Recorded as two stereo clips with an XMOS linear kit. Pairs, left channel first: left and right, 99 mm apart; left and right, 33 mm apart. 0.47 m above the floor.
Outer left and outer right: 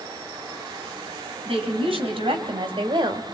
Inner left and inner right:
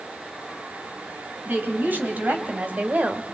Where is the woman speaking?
70° right (ahead or behind), 4 m; by 3.2 s 50° right (ahead or behind), 1.6 m.